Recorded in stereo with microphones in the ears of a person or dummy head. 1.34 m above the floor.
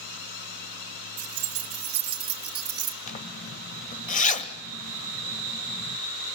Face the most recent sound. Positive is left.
turn(degrees=35)  # may be behind; listen again after turning